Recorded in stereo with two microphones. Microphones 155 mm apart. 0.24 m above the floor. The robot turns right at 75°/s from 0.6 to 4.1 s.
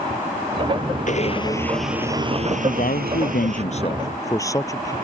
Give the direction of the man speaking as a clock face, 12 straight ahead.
10 o'clock.